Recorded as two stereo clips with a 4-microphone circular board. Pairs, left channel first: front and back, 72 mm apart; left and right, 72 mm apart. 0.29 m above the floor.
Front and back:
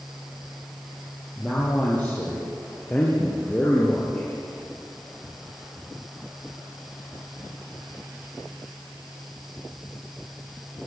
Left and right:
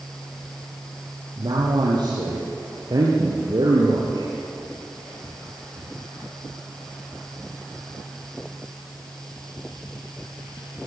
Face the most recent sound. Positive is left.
turn(degrees=-75)